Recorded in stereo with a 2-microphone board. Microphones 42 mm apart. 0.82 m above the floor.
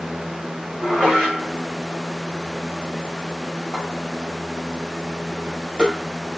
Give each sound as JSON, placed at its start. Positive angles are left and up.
{"t": 0.8, "sound": "dishes clattering", "side_deg": -10, "distance_m": 3.0}